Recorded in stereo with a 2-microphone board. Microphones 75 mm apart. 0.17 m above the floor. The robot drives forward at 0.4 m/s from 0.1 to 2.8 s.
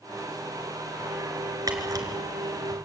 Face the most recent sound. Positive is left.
turn(degrees=-55)  # may be behind; listen again after turning